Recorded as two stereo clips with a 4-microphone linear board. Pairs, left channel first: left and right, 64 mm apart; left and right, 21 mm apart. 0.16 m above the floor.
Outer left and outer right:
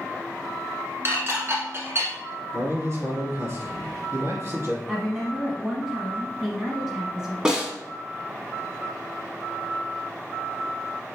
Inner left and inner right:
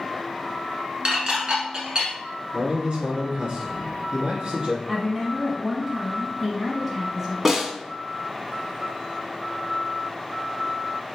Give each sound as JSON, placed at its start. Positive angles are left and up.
{"t": 1.1, "sound": "dishes clattering", "side_deg": -40, "distance_m": 1.1}
{"t": 2.5, "sound": "a man speaking", "side_deg": -45, "distance_m": 2.0}
{"t": 4.9, "sound": "a woman speaking", "side_deg": -10, "distance_m": 1.0}
{"t": 7.5, "sound": "a snare drum", "side_deg": -15, "distance_m": 1.0}